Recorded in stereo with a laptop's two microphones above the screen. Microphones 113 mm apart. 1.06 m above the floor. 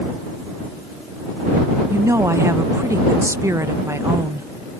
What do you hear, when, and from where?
1.9 s a woman speaking: 25° right (ahead or behind)